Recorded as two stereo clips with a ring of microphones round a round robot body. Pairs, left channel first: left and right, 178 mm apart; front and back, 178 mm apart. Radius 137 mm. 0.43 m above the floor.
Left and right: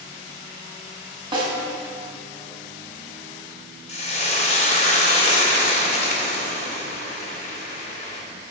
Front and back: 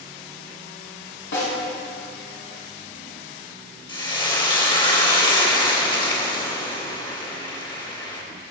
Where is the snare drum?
30° right, 2.5 m.